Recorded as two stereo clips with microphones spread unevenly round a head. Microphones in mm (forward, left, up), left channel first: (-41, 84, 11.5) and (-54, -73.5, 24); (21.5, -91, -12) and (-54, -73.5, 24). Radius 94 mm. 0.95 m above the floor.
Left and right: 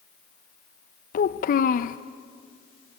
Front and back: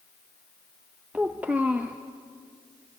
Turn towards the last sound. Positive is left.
turn(degrees=75)